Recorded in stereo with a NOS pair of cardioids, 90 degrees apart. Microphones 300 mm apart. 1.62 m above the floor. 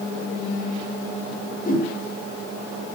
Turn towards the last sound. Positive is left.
turn(degrees=30)